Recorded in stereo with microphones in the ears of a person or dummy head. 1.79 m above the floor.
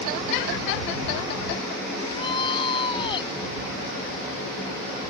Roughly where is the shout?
Left.